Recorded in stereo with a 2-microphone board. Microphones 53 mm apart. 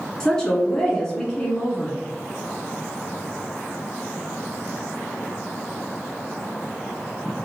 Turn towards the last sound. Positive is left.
turn(degrees=10)  # may be behind; listen again after turning